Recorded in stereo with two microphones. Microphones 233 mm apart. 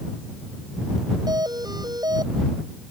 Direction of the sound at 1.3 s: 15° right (ahead or behind).